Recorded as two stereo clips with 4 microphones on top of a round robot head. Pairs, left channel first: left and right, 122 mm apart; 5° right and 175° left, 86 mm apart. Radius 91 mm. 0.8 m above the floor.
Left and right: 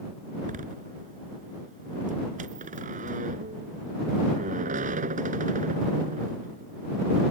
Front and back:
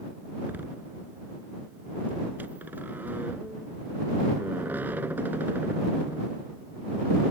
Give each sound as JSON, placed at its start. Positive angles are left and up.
{"t": 0.4, "sound": "a door slam", "azimuth_deg": -105}